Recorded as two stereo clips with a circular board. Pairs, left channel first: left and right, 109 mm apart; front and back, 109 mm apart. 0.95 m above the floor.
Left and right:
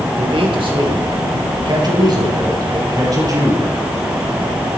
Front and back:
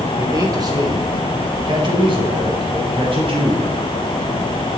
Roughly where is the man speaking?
Behind right.